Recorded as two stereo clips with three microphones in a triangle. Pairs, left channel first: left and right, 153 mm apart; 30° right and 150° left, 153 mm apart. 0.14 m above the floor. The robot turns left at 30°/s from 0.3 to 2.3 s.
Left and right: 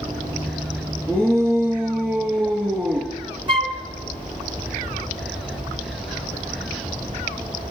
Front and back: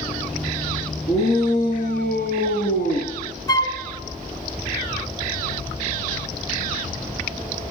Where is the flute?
75° right, 0.9 m.